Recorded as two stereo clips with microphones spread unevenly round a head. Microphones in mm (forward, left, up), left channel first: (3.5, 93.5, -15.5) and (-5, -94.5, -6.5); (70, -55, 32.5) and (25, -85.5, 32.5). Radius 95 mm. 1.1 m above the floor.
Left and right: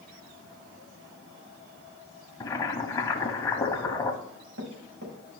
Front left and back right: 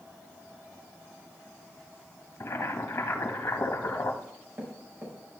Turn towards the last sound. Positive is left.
turn(degrees=-100)